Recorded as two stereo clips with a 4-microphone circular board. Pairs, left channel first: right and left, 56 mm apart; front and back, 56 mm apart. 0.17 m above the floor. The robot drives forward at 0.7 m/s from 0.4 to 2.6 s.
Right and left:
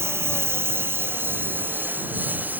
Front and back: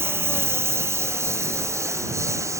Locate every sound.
0.0 s a lawn mower: 135° left; by 2.6 s 150° left